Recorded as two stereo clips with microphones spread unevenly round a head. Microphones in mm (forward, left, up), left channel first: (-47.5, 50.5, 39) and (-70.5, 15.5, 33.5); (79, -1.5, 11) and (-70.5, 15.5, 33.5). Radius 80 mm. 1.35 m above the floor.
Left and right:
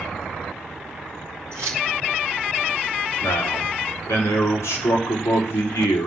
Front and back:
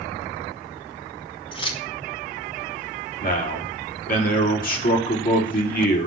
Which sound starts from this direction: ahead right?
Keys jangling, at 1.5 s.